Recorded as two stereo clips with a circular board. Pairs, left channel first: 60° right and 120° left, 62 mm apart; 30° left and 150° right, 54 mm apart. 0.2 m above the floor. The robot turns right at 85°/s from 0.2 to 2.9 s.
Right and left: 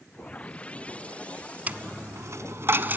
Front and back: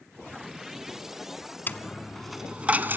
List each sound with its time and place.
1.7 s a dropped coin: 65° left, 0.9 m; by 3.0 s 170° left, 0.9 m